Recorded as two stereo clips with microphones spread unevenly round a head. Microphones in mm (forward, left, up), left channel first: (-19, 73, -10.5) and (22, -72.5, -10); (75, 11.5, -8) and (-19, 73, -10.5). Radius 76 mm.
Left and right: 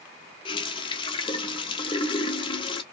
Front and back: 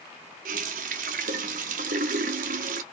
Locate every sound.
0.5 s a running tap: 170° left, 0.5 m